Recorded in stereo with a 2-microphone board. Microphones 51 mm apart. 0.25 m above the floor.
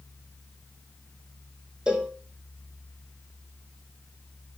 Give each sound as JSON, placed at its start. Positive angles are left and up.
{"t": 1.9, "sound": "a cowbell", "side_deg": -20, "distance_m": 2.5}